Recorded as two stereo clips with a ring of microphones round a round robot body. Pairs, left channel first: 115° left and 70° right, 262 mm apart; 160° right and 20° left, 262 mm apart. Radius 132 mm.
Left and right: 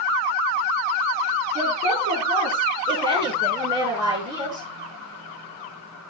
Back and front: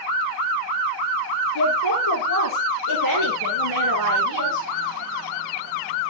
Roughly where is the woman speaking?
Behind right.